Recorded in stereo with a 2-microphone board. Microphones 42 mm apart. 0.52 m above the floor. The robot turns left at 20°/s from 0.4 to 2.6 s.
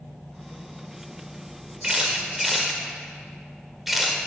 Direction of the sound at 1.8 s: 20° right (ahead or behind).